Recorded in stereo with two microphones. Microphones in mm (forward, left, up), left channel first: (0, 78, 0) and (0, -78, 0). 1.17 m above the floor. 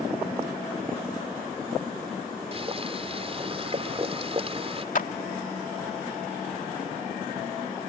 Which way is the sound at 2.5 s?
40° right (ahead or behind).